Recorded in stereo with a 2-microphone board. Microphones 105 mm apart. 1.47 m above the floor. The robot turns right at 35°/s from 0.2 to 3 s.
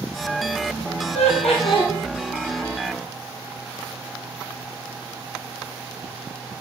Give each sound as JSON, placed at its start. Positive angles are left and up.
{"t": 1.1, "sound": "laughter", "side_deg": 80, "distance_m": 1.5}